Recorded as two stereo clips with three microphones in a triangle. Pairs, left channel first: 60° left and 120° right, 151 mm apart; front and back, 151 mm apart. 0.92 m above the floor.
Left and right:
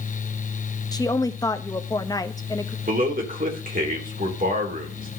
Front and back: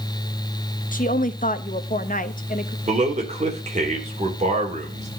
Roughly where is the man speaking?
Behind right.